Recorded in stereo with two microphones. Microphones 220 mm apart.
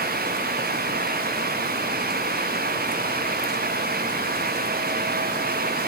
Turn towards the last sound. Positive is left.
No sound to turn to.